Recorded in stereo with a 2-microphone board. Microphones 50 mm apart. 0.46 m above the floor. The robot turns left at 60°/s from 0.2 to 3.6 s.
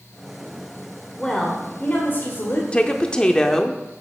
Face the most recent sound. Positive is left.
turn(degrees=10)  # may be behind; listen again after turning